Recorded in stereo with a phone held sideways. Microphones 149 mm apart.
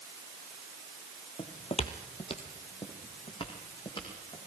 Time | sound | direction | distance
1.4 | footsteps | 40° left (ahead or behind) | 1.7 m